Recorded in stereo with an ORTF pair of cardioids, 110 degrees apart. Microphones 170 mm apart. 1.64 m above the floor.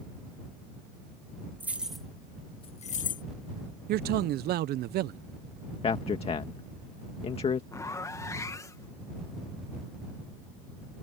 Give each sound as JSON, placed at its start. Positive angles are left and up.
{"t": 1.6, "sound": "keys jangling", "azimuth_deg": -10}
{"t": 3.9, "sound": "a man speaking", "azimuth_deg": -70}
{"t": 5.8, "sound": "a man speaking", "azimuth_deg": 35}
{"t": 7.7, "sound": "a zipper", "azimuth_deg": 20}